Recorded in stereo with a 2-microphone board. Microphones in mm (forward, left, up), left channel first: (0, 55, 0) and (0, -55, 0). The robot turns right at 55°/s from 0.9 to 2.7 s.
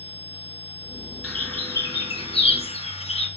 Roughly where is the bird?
Centre.